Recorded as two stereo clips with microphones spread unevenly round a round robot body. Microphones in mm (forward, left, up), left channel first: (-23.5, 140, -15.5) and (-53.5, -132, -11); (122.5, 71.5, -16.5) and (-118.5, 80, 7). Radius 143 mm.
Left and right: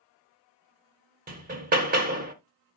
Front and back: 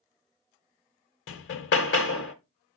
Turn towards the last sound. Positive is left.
turn(degrees=-35)